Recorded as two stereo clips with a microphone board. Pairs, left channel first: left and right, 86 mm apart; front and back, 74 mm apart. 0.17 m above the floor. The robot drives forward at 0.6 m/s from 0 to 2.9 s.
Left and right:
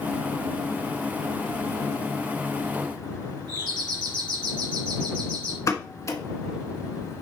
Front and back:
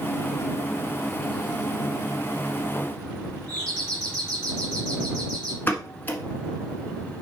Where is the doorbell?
80° right, 3.5 m.